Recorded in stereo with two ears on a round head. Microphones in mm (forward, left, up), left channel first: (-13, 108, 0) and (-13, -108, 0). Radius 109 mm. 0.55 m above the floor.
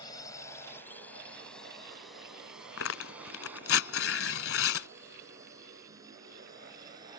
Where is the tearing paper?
55° left (ahead or behind).